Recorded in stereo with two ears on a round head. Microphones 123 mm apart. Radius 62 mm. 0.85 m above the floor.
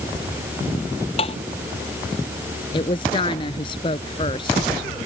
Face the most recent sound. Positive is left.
turn(degrees=35)  # may be behind; listen again after turning